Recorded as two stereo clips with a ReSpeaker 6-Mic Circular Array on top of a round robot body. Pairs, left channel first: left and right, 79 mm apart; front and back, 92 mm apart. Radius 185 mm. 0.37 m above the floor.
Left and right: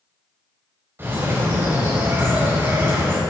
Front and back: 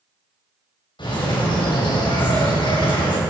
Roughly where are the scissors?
I don't hear scissors.